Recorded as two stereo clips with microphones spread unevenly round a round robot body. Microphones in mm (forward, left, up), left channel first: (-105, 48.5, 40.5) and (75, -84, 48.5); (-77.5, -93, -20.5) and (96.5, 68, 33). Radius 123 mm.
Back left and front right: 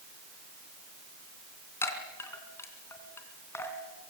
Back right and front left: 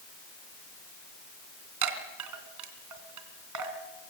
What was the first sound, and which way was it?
A chime, 65° left.